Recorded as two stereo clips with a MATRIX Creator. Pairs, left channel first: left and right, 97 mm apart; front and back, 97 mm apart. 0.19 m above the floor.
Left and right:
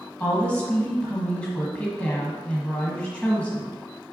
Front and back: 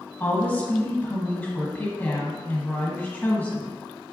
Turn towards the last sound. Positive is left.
turn(degrees=35)